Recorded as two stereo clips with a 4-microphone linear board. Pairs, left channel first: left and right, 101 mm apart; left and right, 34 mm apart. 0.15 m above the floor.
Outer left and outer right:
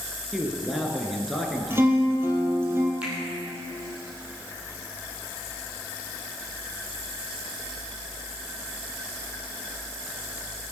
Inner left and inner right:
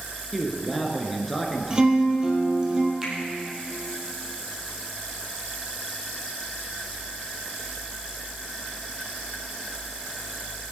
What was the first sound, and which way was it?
A man speaking, centre (ahead or behind).